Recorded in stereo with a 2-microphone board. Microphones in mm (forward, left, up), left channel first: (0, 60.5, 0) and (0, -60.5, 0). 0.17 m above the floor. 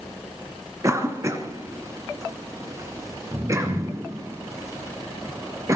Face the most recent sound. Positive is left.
turn(degrees=-25)  # may be behind; listen again after turning